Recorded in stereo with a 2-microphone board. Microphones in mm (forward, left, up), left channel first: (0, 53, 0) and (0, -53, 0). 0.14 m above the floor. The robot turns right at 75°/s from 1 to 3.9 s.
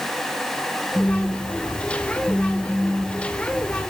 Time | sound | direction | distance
0.9 | a phone buzzing | 65° left | 0.8 m